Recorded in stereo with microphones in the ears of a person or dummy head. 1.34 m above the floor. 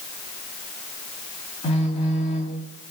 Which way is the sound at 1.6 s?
40° left (ahead or behind).